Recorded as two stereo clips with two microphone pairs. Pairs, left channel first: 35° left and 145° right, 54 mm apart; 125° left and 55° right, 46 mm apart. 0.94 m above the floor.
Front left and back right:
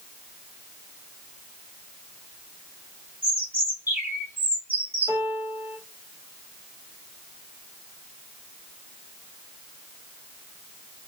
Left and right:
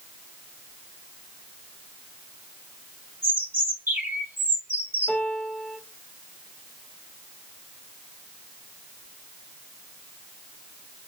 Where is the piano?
175° right, 1.1 m.